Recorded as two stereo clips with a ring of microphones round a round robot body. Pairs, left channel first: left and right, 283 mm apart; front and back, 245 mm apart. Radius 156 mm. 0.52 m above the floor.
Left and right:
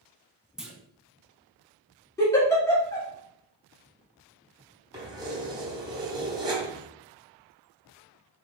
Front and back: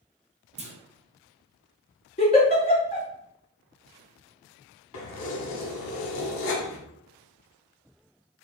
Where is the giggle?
20° left, 1.3 m.